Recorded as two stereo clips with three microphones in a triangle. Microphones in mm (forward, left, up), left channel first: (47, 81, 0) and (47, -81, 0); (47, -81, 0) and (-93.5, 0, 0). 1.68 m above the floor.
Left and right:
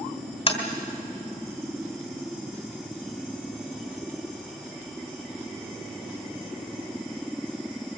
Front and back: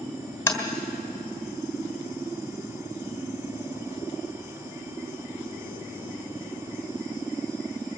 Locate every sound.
0.5 s tapping: 45° left, 2.5 m